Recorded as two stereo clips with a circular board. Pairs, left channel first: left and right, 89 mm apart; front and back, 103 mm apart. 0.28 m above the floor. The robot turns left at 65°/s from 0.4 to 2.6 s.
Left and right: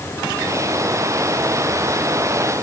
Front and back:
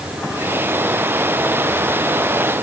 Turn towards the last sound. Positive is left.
No sound to turn to.